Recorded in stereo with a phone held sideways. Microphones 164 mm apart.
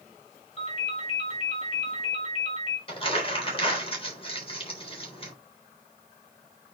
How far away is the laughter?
I don't hear laughter.